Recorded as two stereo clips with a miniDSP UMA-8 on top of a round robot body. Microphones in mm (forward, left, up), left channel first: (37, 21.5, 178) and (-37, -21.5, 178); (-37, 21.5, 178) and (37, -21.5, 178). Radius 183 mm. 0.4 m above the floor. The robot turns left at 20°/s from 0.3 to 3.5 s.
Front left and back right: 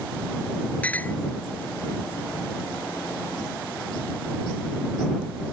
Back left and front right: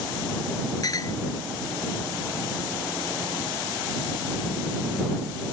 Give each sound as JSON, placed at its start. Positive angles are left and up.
{"t": 0.8, "sound": "a clink", "azimuth_deg": 105}